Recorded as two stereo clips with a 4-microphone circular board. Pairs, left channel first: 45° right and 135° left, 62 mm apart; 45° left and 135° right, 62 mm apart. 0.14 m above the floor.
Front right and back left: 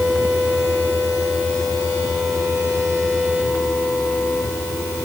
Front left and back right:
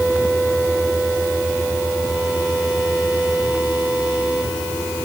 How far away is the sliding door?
I don't hear a sliding door.